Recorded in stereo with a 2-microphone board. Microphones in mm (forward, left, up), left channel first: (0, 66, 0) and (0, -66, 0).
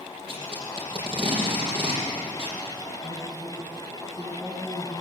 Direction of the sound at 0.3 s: 40° right (ahead or behind).